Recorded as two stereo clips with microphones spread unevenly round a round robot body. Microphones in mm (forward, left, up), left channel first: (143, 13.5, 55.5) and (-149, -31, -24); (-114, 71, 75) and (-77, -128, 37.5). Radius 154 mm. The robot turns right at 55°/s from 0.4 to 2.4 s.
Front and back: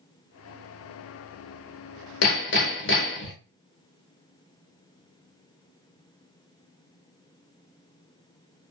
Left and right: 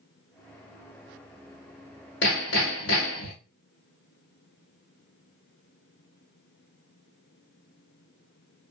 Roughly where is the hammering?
Ahead left.